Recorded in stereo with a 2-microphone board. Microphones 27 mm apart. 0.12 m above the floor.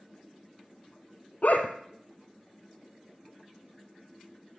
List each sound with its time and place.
1.4 s a dog barking: 65° left (ahead or behind), 1.5 m